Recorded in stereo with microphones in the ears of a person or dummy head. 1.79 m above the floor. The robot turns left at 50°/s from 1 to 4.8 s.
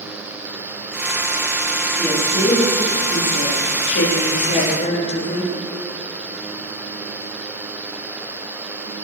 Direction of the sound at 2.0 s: 170° left.